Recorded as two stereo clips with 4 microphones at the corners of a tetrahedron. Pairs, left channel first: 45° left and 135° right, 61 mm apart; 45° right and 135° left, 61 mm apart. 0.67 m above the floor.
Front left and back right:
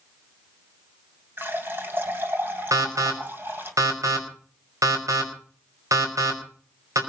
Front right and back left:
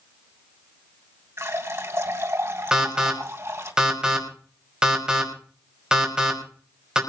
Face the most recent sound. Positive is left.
turn(degrees=-150)